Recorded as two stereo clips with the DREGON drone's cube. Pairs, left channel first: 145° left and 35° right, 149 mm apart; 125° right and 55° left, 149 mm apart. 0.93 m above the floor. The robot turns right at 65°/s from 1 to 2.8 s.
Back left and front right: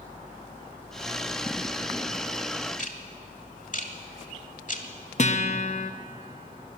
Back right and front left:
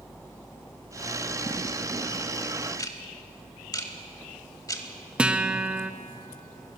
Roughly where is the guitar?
Behind left.